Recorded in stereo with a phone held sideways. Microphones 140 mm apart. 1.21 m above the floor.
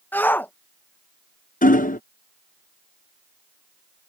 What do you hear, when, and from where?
0.1 s a shout: 15° left (ahead or behind)
1.6 s hammering: 75° left (ahead or behind)